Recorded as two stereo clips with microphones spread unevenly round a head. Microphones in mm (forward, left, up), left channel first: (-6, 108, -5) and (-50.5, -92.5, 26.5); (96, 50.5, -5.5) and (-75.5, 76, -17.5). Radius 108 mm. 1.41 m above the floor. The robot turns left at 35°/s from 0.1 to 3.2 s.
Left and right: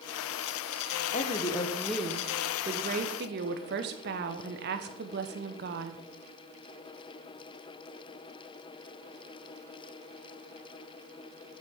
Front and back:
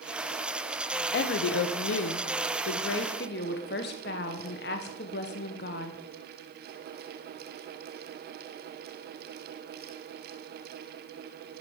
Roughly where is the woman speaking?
Ahead.